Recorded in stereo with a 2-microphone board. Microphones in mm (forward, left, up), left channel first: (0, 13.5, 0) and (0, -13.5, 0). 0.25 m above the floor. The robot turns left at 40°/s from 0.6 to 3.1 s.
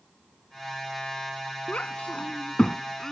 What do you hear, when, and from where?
1.7 s a child speaking: 60° left (ahead or behind); by 3.1 s 20° left (ahead or behind)